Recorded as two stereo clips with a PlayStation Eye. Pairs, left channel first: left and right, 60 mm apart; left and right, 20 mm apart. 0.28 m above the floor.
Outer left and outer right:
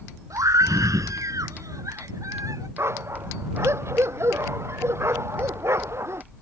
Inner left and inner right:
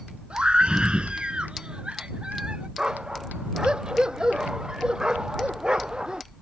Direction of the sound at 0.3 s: 65° right (ahead or behind).